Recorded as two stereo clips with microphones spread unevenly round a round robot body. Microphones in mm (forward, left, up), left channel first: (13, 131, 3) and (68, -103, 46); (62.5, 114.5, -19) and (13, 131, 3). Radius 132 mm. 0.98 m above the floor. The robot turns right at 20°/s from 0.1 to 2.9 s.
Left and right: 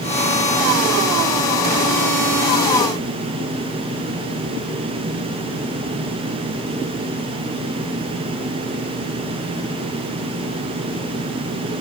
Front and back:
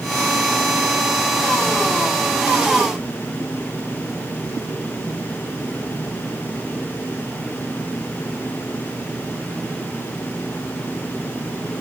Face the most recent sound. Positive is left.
No sound to turn to.